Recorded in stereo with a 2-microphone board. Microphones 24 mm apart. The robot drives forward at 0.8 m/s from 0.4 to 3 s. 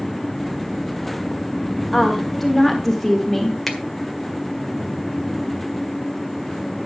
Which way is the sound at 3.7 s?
10° left (ahead or behind).